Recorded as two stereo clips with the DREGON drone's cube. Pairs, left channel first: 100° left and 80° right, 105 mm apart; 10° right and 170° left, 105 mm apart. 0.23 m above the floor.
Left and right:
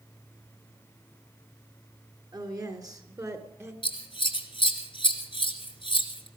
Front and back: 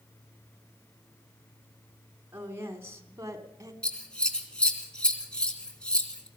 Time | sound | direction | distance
2.3 | a woman speaking | 125° right | 3 m
3.8 | scissors | 70° left | 2.5 m